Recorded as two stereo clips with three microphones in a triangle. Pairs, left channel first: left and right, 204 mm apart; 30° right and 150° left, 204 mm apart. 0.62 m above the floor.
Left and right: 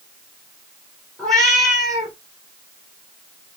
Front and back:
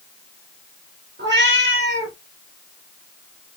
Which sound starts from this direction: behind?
A cat meowing, at 1.2 s.